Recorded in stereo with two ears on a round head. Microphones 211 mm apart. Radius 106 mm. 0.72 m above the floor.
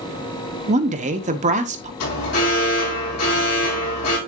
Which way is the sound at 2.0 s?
75° left (ahead or behind).